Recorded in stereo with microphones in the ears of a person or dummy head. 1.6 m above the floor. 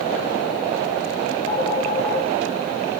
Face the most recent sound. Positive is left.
turn(degrees=25)  # may be behind; listen again after turning